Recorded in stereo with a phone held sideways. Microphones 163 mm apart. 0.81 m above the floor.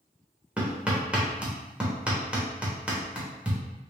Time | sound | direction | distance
0.6 | hammering | 10° right (ahead or behind) | 1.1 m